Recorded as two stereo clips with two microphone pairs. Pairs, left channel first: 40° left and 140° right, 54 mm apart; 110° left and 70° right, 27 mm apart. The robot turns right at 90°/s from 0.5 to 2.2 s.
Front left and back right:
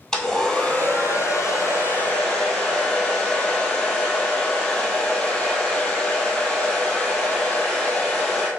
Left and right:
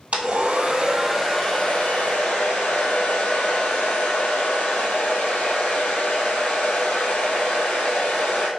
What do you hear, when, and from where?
0.1 s a hair dryer: 40° right, 1.5 m; by 8.5 s 115° left, 1.5 m